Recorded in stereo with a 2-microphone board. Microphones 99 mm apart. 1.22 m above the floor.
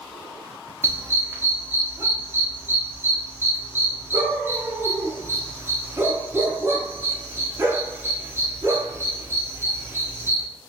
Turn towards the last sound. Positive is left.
turn(degrees=-25)  # may be behind; listen again after turning